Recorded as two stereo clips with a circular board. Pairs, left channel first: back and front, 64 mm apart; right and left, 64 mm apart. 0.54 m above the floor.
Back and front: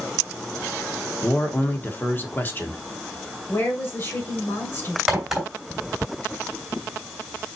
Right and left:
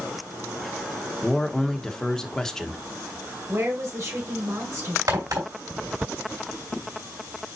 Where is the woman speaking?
130° left, 2.5 m.